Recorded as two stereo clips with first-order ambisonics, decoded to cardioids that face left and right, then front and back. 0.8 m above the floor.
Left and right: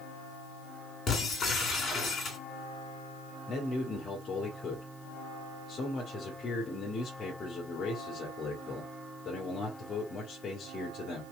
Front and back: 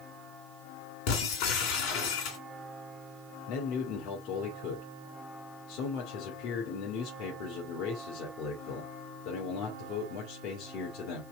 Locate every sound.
1.1 s breaking glass: 20° left, 2.5 m
3.5 s a man speaking: 20° left, 2 m